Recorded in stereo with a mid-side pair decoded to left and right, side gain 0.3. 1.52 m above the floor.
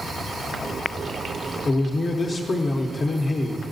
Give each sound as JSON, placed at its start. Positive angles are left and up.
{"t": 1.6, "sound": "a man speaking", "azimuth_deg": 60, "distance_m": 0.7}